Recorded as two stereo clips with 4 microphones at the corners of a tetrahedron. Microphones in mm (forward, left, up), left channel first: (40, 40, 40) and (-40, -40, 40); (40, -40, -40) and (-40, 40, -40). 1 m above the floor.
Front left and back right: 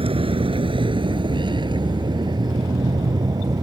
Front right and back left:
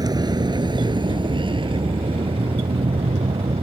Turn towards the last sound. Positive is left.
turn(degrees=170)